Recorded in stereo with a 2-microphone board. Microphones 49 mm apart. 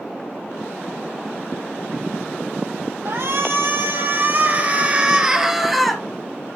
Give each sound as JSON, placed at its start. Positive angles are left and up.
{"t": 3.0, "sound": "a shout", "side_deg": -60, "distance_m": 4.0}